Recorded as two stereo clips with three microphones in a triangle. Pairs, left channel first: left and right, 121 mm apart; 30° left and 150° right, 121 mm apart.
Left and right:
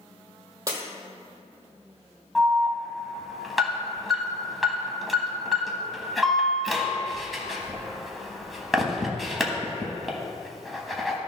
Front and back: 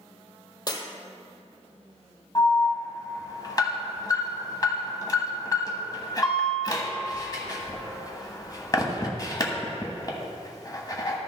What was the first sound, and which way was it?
Breaking glass, 30° right.